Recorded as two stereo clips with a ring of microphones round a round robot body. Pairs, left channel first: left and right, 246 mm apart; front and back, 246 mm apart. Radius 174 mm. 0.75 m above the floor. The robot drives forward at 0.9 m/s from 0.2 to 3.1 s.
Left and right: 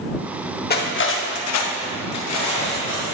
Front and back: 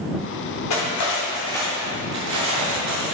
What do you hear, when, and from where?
0.7 s cutlery clinking: 40° left, 1.1 m; by 3.1 s 150° left, 1.5 m